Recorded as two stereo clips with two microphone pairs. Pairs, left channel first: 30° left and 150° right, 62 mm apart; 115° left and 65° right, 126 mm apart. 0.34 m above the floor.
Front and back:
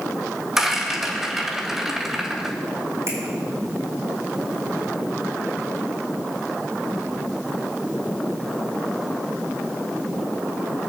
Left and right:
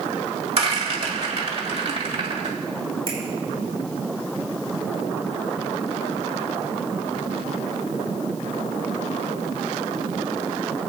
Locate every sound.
0.6 s a rattle: 65° right, 2 m
3.1 s a finger snap: 110° right, 6 m